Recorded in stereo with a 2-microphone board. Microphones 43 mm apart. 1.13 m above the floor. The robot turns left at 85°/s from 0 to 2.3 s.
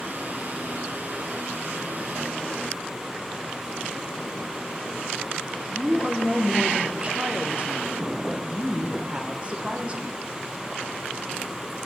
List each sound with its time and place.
5.7 s a woman speaking: 25° right (ahead or behind), 1.0 m